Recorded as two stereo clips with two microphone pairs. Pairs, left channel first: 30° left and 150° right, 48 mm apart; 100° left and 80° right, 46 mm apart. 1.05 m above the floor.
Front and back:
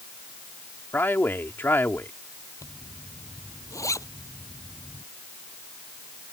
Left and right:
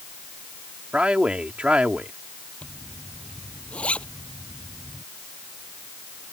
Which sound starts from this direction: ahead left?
A zipper, at 2.6 s.